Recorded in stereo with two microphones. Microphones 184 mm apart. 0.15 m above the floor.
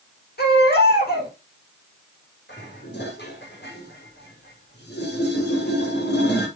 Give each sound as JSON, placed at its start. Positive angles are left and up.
{"t": 0.4, "sound": "a baby crying", "side_deg": 60, "distance_m": 6.5}
{"t": 2.5, "sound": "dishes clattering", "side_deg": 65, "distance_m": 5.5}